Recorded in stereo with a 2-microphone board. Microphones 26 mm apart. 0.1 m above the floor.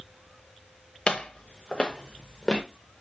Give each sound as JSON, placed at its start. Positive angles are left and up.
{"t": 1.1, "sound": "footsteps", "side_deg": 35, "distance_m": 1.1}